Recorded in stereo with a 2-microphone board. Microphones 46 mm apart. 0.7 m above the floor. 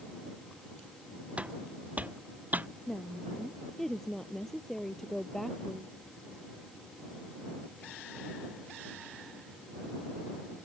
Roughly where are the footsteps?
Right.